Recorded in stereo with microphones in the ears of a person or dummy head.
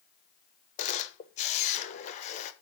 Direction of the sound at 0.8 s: 40° left (ahead or behind).